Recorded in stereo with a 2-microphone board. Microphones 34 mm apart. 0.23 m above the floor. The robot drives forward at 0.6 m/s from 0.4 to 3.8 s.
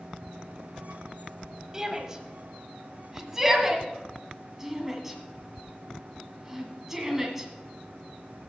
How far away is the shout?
About 1.3 m.